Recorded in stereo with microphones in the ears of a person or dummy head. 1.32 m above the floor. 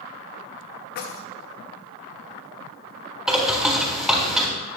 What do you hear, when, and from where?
0.9 s keys jangling: 55° left (ahead or behind), 1.1 m
3.3 s a bird: 5° right (ahead or behind), 3.5 m